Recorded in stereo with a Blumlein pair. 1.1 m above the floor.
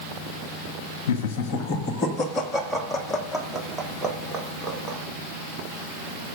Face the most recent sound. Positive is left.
turn(degrees=-15)